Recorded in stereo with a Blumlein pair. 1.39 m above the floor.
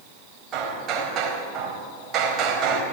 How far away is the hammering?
About 4 m.